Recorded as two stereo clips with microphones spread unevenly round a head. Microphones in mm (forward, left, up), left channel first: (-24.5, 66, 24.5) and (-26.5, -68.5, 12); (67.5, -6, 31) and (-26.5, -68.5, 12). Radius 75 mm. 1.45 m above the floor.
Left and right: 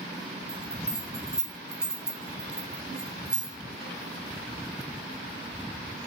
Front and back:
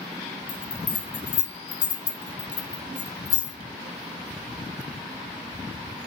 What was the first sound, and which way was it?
A bell, straight ahead.